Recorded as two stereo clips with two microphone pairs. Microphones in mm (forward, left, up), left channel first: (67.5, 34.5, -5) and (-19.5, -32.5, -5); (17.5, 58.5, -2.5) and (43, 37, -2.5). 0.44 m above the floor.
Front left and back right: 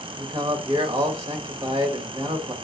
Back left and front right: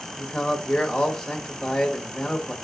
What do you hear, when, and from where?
0.2 s a man speaking: 145° right, 1.5 m